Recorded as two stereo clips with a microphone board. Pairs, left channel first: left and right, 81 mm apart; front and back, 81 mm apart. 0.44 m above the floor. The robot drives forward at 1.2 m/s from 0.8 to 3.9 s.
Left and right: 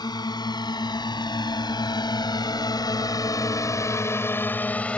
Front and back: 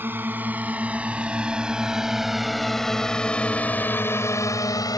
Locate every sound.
0.0 s a drone: 115° left; by 5.0 s 20° left